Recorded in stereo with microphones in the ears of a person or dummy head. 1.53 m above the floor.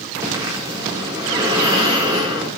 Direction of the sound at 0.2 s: 15° right (ahead or behind).